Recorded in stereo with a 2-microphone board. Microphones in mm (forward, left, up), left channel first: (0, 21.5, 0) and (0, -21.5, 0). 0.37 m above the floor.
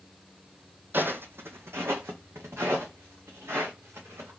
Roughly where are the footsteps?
Right.